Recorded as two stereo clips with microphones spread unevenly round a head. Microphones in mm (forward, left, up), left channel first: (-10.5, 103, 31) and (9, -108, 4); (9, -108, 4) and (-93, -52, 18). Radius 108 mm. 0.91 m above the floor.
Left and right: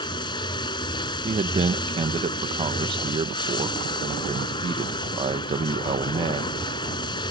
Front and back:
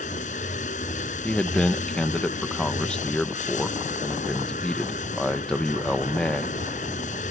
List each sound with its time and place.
0.0 s running water: 25° left
1.2 s a man speaking: 95° right